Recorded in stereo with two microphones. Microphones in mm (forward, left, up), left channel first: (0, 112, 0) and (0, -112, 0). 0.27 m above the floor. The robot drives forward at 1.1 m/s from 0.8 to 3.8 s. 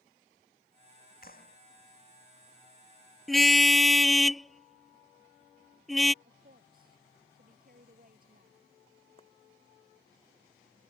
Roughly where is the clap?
Left.